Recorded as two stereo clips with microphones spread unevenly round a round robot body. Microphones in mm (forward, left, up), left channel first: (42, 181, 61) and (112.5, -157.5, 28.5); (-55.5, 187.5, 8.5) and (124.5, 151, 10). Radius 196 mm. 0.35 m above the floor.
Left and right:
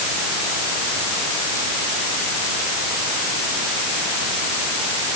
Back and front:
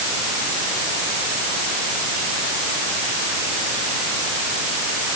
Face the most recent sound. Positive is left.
No sound to turn to.